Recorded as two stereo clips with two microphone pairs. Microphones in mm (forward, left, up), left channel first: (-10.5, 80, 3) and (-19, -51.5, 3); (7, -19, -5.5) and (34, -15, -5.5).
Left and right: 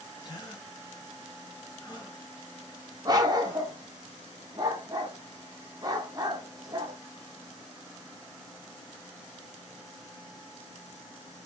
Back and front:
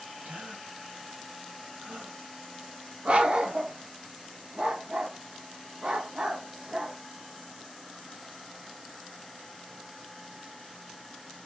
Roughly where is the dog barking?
Ahead right.